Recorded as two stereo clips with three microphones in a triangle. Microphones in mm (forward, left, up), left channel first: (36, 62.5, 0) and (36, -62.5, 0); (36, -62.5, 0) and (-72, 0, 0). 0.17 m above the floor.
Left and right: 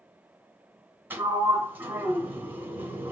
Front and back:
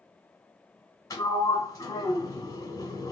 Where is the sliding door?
40° right, 1.3 m.